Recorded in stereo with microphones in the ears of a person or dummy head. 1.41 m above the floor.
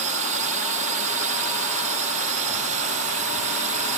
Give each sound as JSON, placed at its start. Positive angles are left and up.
{"t": 0.0, "sound": "a drone", "side_deg": -35}